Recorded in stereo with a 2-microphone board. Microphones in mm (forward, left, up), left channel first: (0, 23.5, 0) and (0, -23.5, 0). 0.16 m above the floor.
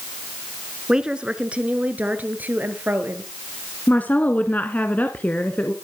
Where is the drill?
I don't hear a drill.